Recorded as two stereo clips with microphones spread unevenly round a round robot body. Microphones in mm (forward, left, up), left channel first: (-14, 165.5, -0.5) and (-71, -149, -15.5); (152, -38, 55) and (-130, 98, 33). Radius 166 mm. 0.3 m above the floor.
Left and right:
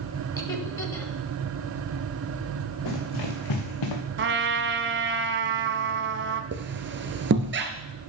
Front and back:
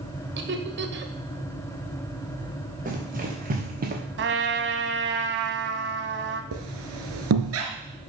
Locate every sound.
0.4 s laughter: 160° left, 1.7 m
2.9 s running footsteps: 90° left, 4 m
4.2 s a trumpet: 155° right, 1.1 m
6.5 s a squeak: 155° right, 1.7 m